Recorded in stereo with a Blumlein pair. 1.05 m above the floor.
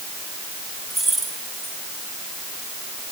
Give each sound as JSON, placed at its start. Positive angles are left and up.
{"t": 0.9, "sound": "keys jangling", "azimuth_deg": -15, "distance_m": 6.0}